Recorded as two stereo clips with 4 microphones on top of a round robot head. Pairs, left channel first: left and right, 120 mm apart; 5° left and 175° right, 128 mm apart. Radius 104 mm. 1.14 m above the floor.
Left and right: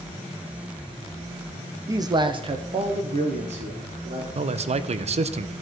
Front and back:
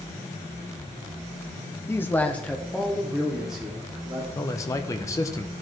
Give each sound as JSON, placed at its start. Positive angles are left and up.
{"t": 1.9, "sound": "a man speaking", "azimuth_deg": -50, "distance_m": 0.6}
{"t": 4.3, "sound": "a man speaking", "azimuth_deg": -65, "distance_m": 0.6}